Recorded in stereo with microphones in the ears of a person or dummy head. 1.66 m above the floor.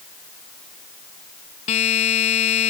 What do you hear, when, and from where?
1.7 s a buzzer: 35° left (ahead or behind)